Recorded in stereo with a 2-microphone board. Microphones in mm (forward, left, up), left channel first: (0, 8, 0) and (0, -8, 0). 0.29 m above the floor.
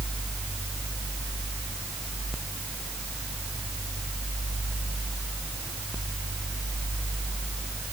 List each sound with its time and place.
Only background noise.